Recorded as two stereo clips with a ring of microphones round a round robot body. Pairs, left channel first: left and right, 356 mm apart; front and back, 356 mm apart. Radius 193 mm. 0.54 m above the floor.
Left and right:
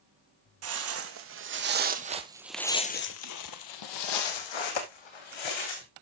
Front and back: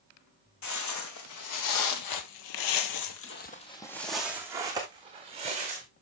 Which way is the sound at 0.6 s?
40° right.